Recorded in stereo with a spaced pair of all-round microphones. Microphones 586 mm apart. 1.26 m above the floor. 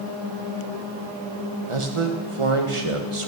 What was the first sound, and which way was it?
A man speaking, 60° right (ahead or behind).